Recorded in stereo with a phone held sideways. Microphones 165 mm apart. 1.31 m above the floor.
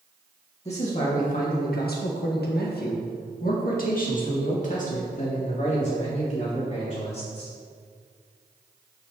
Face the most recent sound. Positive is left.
turn(degrees=40)  # may be behind; listen again after turning